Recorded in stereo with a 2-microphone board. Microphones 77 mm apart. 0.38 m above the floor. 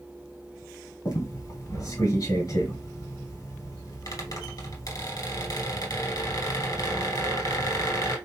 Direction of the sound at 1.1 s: 50° left (ahead or behind).